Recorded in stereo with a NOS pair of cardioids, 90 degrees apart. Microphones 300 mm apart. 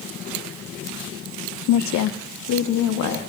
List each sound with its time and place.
1.7 s a woman speaking: 65° left, 0.5 m; by 3.2 s 70° left, 1.8 m